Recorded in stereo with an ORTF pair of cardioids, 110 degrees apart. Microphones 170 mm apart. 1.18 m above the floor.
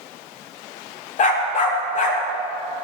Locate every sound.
1.2 s a dog barking: 50° left, 1.6 m